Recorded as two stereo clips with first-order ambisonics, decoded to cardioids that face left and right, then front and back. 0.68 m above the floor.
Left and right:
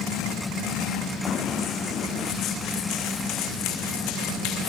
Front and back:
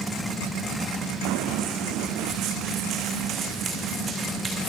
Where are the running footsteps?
155° left, 2.5 m; by 4.7 s 110° left, 3 m.